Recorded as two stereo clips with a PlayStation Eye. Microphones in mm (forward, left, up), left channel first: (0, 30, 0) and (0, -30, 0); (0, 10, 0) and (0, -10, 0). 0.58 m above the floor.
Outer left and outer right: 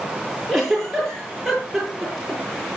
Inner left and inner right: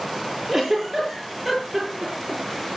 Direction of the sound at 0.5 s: Centre (ahead or behind).